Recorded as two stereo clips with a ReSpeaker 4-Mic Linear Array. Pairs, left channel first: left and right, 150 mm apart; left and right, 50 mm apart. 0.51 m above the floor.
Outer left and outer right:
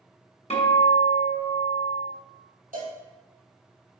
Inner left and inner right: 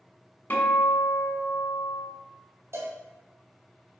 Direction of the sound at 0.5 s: 45° left (ahead or behind).